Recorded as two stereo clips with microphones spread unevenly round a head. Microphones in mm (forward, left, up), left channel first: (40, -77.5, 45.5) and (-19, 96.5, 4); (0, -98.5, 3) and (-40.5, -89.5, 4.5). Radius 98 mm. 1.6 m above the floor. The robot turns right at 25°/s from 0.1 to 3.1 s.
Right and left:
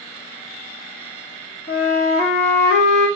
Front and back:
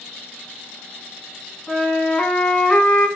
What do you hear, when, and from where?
1.7 s a flute: 70° right, 1.9 m; by 3.1 s 35° right, 1.9 m